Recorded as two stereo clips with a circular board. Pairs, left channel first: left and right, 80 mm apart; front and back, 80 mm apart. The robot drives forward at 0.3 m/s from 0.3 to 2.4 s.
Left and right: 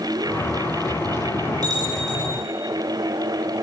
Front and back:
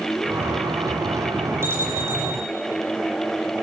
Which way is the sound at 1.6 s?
120° right.